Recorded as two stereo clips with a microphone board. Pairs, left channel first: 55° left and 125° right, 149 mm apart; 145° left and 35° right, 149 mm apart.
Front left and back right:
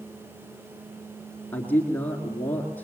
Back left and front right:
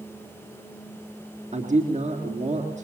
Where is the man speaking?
20° right, 2.5 m.